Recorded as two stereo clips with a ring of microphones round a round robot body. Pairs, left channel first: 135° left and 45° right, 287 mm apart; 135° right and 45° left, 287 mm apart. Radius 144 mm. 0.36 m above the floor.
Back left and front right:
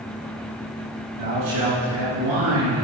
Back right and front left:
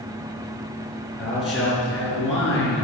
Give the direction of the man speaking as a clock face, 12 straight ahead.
1 o'clock.